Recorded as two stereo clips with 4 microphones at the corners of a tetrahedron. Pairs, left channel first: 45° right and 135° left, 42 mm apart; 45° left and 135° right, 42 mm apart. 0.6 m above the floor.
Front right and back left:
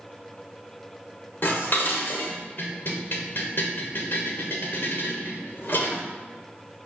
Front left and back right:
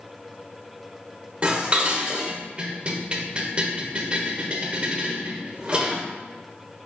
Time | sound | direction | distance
1.4 | dishes clattering | 75° right | 1.1 m